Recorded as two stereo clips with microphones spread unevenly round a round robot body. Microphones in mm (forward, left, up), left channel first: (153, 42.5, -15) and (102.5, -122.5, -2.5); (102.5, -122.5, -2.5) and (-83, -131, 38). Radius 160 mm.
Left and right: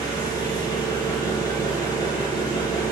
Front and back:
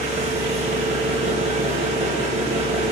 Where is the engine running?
125° left, 1.3 m.